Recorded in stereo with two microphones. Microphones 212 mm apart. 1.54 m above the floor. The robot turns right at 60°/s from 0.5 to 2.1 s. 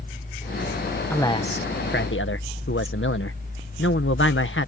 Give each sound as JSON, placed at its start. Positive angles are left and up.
{"t": 1.1, "sound": "a man speaking", "azimuth_deg": 10}